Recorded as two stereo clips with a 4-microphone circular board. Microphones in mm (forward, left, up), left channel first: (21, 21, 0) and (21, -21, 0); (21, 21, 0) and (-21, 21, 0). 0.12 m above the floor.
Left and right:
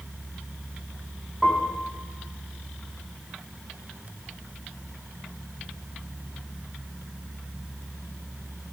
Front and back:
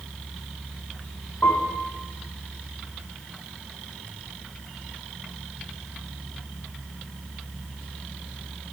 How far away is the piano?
About 2.5 m.